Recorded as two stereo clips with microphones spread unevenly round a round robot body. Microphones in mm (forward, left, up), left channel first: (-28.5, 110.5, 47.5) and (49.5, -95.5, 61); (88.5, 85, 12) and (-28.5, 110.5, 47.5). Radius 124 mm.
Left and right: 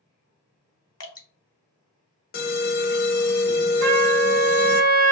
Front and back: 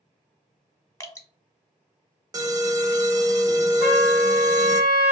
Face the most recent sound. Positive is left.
turn(degrees=-85)